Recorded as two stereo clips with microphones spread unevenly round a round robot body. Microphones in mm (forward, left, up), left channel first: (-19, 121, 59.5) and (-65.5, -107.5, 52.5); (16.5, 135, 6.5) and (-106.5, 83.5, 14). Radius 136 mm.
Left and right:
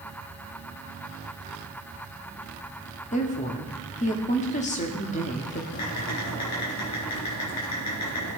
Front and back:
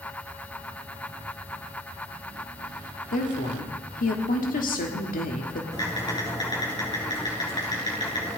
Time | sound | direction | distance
3.1 | a woman speaking | 15° left | 1.4 m
5.7 | typing on a keyboard | 80° left | 7 m